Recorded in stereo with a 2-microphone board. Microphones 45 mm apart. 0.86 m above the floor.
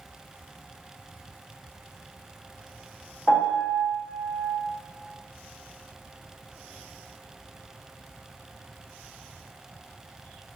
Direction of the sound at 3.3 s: 40° left (ahead or behind).